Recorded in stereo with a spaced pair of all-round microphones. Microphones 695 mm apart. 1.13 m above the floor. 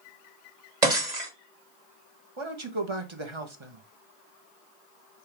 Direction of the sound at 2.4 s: 45° right (ahead or behind).